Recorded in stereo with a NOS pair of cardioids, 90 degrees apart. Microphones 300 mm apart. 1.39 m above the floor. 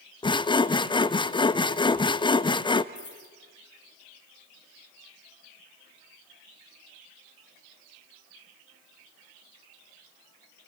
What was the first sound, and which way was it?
Sawing, 15° left.